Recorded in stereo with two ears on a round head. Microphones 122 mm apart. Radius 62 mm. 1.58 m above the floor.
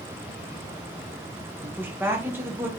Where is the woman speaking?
15° right (ahead or behind), 0.8 m.